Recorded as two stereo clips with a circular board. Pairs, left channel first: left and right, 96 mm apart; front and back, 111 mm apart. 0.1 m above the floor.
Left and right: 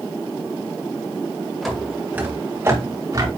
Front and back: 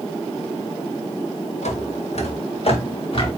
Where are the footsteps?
Straight ahead, 2 m; by 3.3 s 40° right, 4 m.